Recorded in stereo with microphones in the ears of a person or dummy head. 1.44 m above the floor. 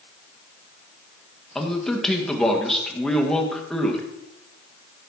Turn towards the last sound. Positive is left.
turn(degrees=5)  # may be behind; listen again after turning